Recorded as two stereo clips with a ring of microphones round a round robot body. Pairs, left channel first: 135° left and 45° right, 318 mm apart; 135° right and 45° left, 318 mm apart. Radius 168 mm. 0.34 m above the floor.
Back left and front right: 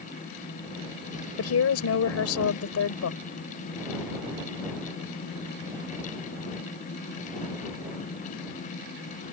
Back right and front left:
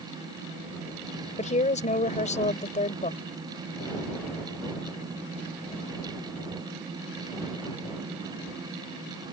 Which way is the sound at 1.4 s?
160° left.